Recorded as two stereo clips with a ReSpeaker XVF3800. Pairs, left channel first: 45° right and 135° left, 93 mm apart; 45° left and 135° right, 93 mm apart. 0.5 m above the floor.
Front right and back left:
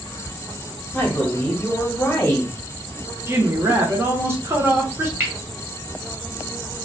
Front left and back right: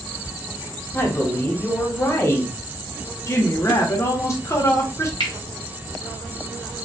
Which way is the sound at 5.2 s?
70° left.